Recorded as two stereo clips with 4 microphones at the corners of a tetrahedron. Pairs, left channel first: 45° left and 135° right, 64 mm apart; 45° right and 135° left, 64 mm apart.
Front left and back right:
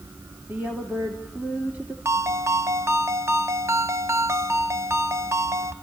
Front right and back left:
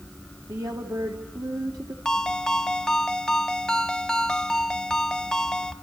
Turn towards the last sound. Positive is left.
turn(degrees=-120)